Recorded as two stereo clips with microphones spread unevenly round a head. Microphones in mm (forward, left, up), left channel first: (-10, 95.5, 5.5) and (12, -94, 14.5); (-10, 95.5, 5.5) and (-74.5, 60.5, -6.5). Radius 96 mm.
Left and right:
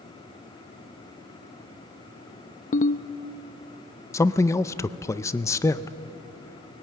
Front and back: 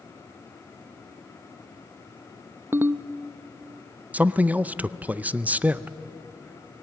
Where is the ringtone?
150° left, 0.6 m.